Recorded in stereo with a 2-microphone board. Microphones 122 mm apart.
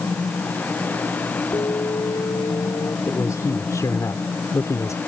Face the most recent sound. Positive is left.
turn(degrees=25)  # may be behind; listen again after turning